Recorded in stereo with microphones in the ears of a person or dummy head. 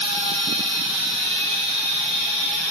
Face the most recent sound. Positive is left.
turn(degrees=50)  # may be behind; listen again after turning